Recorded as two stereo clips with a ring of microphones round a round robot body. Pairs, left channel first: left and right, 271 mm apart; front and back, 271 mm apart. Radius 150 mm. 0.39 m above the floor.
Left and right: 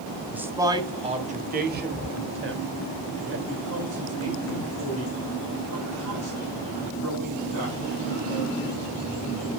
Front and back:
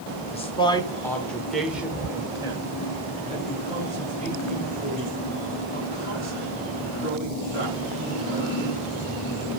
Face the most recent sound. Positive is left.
turn(degrees=-125)